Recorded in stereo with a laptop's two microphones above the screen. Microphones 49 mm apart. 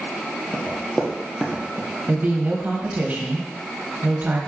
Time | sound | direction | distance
0.5 | running footsteps | 10° left (ahead or behind) | 1.0 m
2.1 | a woman speaking | 35° right (ahead or behind) | 0.6 m